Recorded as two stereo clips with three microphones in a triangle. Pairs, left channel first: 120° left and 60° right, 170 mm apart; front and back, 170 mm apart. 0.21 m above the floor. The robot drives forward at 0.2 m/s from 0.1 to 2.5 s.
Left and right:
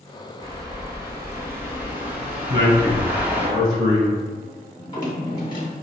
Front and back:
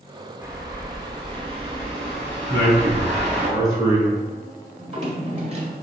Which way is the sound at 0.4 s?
115° right.